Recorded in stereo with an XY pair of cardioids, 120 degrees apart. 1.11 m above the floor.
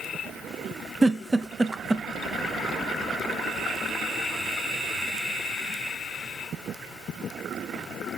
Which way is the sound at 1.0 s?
15° right.